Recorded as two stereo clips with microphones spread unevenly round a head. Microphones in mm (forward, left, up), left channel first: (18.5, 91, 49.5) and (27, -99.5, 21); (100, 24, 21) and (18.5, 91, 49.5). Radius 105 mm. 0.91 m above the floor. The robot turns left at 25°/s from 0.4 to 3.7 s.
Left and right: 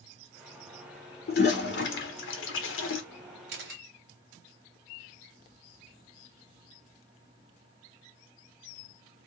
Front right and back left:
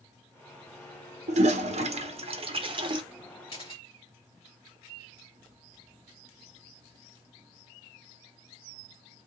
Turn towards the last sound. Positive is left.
turn(degrees=-110)